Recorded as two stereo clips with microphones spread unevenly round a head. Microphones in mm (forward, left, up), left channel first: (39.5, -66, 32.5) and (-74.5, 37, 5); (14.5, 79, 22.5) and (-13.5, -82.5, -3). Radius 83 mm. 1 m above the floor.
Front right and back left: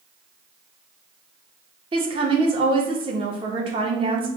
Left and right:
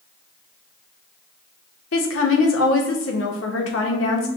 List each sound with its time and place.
1.9 s a woman speaking: 80° left, 1.0 m